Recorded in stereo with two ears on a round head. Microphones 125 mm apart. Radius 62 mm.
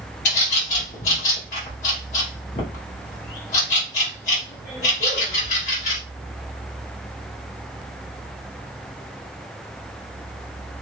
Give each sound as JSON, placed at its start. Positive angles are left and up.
{"t": 0.2, "sound": "a bird", "side_deg": 60, "distance_m": 2.5}